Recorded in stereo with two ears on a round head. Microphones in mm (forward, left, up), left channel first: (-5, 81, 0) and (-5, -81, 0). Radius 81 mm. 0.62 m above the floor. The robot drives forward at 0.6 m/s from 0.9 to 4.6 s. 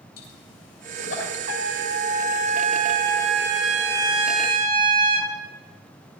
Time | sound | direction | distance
0.2 | a pop | 70° left (ahead or behind) | 8 m
1.5 | a trumpet | 55° right (ahead or behind) | 2.0 m